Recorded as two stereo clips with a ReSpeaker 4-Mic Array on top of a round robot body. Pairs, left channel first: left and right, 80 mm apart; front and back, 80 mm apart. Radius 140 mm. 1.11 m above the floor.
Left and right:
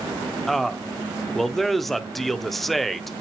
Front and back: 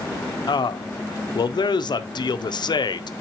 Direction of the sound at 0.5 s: Straight ahead.